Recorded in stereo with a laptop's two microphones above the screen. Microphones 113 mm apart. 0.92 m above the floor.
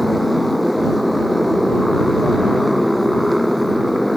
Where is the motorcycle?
Centre (ahead or behind).